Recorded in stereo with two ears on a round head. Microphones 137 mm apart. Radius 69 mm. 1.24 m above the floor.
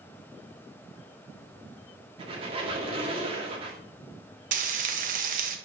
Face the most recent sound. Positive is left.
turn(degrees=-55)  # may be behind; listen again after turning